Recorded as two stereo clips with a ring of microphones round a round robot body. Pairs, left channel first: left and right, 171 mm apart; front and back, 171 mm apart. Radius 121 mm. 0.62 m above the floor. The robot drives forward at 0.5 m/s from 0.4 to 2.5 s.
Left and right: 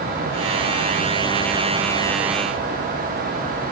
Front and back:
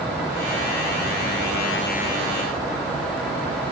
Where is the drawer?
I don't hear a drawer.